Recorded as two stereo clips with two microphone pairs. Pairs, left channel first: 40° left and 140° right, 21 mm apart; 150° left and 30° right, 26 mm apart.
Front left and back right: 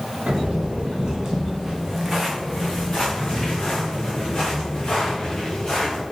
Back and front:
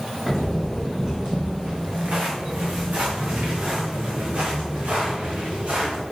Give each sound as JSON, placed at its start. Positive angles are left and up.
{"t": 0.3, "sound": "footsteps", "azimuth_deg": -105, "distance_m": 1.9}